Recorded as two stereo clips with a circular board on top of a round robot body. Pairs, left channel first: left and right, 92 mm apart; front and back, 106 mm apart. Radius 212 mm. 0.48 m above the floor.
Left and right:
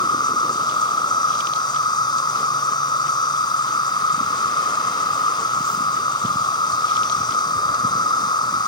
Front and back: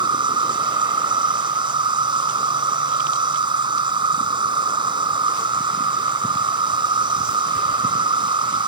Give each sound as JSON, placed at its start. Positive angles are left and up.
{"t": 0.0, "sound": "an insect", "azimuth_deg": 135}